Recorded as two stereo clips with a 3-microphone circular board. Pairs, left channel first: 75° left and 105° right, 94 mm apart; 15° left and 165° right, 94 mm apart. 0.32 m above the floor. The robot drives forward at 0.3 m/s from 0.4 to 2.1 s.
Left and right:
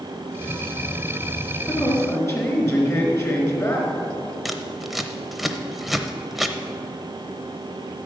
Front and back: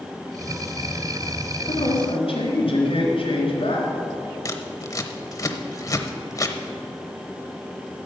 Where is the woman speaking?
20° left, 3.5 m.